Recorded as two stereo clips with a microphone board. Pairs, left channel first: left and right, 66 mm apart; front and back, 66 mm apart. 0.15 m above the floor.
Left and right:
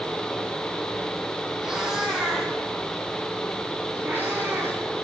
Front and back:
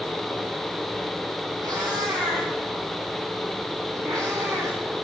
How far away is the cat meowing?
About 3 m.